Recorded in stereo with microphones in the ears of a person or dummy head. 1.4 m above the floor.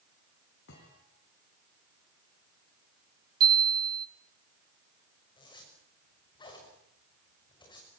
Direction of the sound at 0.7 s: 65° left (ahead or behind).